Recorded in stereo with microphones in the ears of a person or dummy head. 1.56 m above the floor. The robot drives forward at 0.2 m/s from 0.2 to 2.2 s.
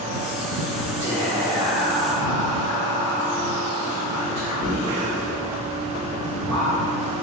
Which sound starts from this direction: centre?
Whispering, at 1.0 s.